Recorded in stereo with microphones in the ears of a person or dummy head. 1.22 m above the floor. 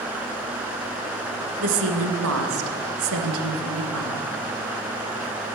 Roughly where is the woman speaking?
Right.